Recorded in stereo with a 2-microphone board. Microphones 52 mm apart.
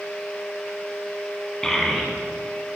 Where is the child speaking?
10° left (ahead or behind), 0.9 m; by 2.8 s 15° right (ahead or behind), 1.3 m.